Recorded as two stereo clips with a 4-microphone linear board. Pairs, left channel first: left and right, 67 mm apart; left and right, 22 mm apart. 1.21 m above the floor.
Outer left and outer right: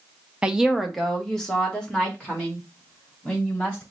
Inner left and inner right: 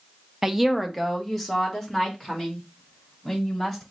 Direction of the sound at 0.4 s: 15° right (ahead or behind).